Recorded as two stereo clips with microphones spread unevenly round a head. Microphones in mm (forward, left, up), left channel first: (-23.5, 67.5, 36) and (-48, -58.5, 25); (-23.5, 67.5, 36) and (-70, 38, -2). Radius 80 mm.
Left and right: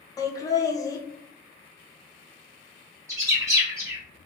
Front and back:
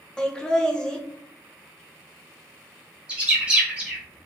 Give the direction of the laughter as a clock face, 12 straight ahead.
7 o'clock.